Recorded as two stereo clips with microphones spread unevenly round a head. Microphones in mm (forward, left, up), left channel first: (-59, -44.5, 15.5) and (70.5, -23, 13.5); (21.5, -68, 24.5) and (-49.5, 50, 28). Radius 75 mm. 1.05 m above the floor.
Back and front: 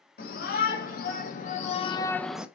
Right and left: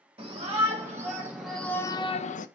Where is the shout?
175° right, 2 m; by 2.5 s 70° right, 0.8 m.